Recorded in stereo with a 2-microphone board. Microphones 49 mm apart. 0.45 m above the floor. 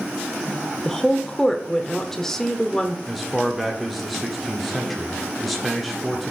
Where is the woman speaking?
10° left (ahead or behind), 0.9 m.